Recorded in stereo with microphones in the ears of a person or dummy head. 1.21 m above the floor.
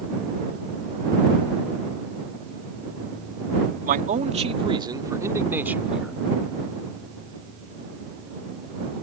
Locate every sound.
3.9 s a man speaking: 40° right (ahead or behind); by 6.1 s centre (ahead or behind)